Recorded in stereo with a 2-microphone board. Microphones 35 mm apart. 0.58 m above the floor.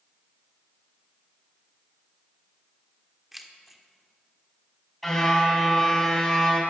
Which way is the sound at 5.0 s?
5° left (ahead or behind).